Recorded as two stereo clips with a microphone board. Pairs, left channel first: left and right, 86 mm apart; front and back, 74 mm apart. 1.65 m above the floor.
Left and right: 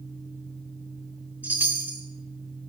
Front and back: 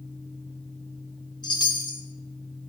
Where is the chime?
20° right, 2.5 m.